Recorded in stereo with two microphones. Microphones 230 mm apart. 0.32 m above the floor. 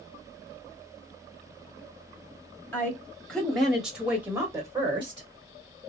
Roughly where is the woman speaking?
Centre.